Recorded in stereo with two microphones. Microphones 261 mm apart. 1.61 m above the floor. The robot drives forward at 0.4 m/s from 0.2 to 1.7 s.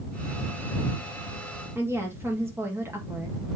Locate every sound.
1.8 s a woman speaking: 10° right (ahead or behind), 1.9 m